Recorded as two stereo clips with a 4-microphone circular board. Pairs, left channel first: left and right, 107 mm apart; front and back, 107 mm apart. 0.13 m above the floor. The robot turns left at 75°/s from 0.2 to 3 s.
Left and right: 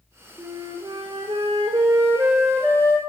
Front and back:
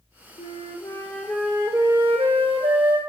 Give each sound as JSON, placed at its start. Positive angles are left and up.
{"t": 0.4, "sound": "a flute", "azimuth_deg": -20, "distance_m": 0.7}